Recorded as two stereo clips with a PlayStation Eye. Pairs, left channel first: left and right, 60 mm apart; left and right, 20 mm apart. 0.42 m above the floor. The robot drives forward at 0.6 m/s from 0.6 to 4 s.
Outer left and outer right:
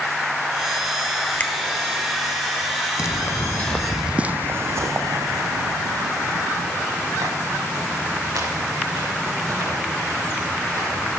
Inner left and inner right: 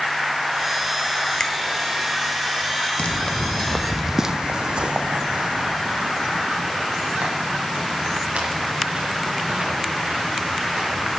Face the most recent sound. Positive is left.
turn(degrees=-85)